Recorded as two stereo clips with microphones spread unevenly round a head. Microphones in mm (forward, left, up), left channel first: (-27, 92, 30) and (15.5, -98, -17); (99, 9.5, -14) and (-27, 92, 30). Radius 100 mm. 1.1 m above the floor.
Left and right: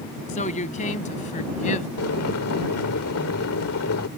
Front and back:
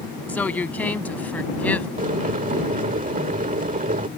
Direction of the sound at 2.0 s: 115° left.